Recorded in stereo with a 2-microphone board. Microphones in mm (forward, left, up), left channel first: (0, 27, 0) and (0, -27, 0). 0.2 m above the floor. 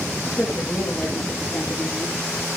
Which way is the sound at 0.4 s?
10° left (ahead or behind).